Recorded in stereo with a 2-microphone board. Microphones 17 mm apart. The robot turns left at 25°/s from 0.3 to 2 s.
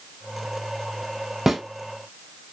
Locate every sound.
1.5 s a snare drum: 15° right (ahead or behind), 0.7 m; by 1.6 s 20° right (ahead or behind), 0.7 m